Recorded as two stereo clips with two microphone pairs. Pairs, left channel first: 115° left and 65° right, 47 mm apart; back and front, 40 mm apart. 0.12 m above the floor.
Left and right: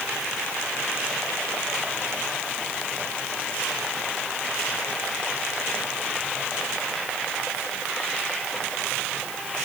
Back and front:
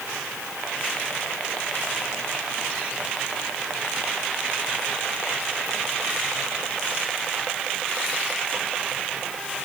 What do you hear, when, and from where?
Only background noise.